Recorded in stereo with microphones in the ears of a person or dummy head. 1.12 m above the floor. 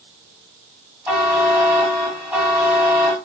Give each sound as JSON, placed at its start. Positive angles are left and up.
{"t": 1.1, "sound": "a buzzer", "side_deg": -5, "distance_m": 1.4}